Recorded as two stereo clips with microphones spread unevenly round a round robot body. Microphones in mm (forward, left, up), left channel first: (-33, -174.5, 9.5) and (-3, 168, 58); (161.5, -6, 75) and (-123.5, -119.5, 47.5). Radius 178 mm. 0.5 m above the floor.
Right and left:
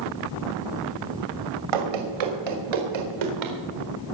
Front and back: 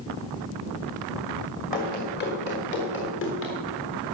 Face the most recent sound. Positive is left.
turn(degrees=75)